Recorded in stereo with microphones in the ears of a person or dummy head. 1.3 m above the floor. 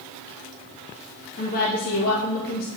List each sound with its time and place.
1.4 s a woman speaking: 50° left (ahead or behind), 1.1 m